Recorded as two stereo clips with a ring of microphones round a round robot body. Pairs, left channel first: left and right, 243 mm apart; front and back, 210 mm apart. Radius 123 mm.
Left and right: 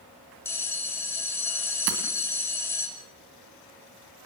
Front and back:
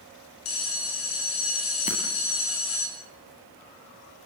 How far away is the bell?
About 6 m.